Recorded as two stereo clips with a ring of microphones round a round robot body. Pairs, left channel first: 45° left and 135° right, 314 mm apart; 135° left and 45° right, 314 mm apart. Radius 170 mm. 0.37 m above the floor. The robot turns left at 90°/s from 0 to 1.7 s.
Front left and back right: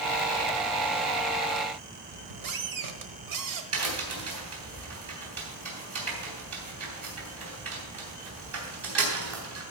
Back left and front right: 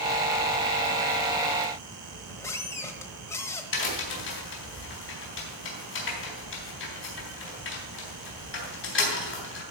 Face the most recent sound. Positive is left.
turn(degrees=-175)